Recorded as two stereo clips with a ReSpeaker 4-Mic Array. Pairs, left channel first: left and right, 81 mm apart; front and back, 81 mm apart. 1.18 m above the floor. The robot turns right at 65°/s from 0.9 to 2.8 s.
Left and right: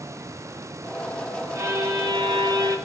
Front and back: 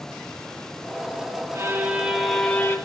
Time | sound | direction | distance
1.6 | a violin | 135° right | 1.0 m